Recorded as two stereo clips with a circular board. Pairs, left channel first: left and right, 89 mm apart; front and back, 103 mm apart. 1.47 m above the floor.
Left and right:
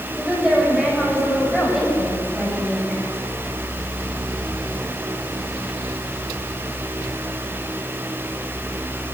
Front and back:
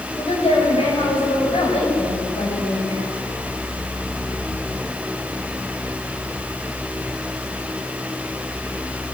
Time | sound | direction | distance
0.1 | a woman speaking | 5° right | 8 m